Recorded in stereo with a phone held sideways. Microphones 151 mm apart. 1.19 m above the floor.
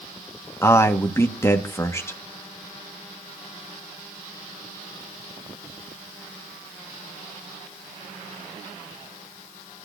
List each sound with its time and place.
0.6 s a man speaking: 15° left (ahead or behind), 1.7 m